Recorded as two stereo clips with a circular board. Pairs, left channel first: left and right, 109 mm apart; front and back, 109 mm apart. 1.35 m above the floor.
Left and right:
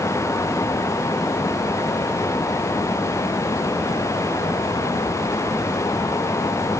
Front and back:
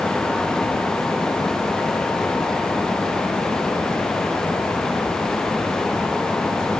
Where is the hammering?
No hammering in this recording.